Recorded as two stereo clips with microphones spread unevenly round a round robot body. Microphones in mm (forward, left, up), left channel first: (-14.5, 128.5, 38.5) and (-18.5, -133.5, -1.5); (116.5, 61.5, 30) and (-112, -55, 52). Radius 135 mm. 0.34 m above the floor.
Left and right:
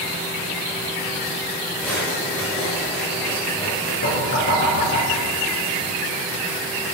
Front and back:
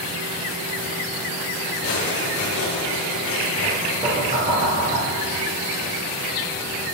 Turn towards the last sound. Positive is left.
turn(degrees=135)